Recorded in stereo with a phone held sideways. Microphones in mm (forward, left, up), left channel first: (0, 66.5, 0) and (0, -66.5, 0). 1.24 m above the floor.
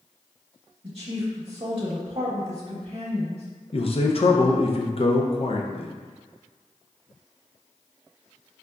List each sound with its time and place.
0.8 s a woman speaking: 45° right (ahead or behind), 0.9 m
3.7 s a man speaking: 45° left (ahead or behind), 0.5 m